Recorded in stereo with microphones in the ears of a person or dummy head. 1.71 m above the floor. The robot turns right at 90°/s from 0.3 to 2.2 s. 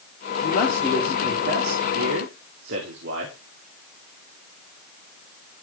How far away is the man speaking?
About 4.5 m.